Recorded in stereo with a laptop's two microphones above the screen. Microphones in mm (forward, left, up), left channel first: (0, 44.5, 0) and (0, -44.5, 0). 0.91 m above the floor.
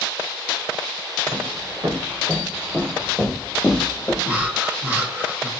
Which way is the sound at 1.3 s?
35° right (ahead or behind).